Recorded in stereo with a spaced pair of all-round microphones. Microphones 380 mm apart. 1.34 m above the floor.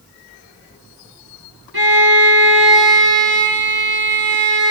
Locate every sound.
1.7 s a violin: 75° right (ahead or behind), 4.5 m